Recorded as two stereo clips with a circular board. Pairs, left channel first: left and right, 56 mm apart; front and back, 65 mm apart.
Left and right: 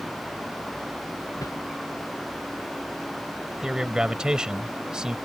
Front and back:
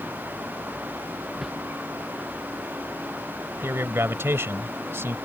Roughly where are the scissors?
No scissors in this recording.